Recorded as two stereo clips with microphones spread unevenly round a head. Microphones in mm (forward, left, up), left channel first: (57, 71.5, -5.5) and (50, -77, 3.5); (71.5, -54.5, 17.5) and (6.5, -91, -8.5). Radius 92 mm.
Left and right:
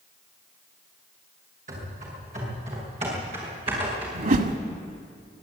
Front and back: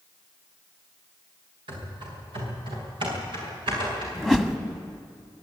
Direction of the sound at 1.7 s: 145° right.